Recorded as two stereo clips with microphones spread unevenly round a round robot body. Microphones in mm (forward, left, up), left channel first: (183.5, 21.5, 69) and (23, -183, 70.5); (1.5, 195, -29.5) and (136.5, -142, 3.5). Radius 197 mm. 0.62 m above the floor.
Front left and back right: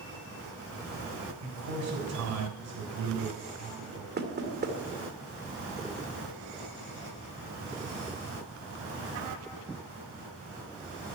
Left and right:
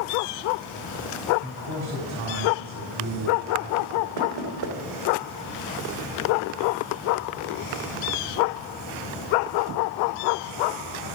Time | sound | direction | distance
1.4 | a man speaking | 120° right | 4 m
4.2 | knocking | 80° right | 2 m